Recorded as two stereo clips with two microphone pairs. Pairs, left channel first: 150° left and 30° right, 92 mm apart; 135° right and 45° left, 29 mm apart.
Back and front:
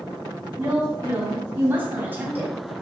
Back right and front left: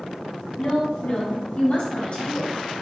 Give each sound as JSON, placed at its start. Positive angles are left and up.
{"t": 0.6, "sound": "a woman speaking", "azimuth_deg": -95, "distance_m": 3.5}